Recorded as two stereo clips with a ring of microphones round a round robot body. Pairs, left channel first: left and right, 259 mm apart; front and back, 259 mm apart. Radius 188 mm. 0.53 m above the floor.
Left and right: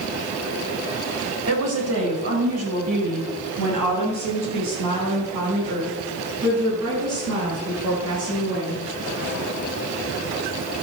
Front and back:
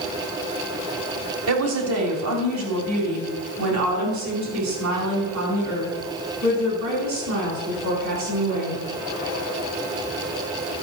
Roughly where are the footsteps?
I don't hear footsteps.